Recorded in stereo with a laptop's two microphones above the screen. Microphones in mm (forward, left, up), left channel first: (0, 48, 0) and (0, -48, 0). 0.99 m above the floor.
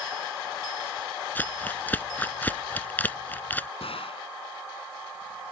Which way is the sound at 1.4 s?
20° left (ahead or behind).